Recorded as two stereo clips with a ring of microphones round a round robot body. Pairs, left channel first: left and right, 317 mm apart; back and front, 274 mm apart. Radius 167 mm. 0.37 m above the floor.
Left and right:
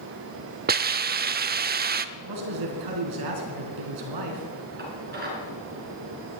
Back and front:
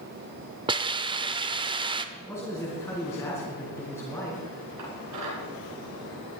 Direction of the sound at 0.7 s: 60° right.